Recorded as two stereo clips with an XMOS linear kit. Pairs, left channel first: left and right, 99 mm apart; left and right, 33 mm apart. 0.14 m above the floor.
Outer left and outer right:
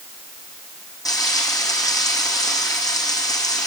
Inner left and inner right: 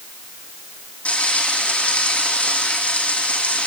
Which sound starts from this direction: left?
Frying, at 1.1 s.